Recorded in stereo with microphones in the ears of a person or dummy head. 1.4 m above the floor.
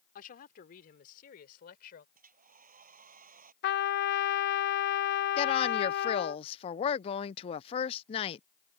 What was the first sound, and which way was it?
A woman speaking, 45° left (ahead or behind).